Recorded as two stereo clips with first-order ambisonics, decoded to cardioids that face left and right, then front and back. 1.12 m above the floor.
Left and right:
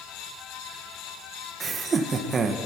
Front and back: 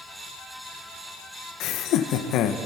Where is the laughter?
25° right, 1.1 m.